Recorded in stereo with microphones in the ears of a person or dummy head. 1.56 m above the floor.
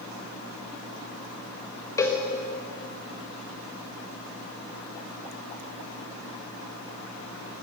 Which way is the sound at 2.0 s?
20° left (ahead or behind).